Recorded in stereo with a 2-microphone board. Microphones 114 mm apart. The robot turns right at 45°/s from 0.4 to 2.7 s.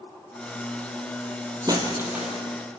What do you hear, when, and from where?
1.7 s breaking glass: 35° right, 3 m; by 2.4 s straight ahead, 3 m